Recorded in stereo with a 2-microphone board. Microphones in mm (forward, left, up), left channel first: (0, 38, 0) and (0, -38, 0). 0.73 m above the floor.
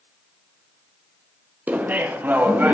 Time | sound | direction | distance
1.7 | laughter | 20° right (ahead or behind) | 0.5 m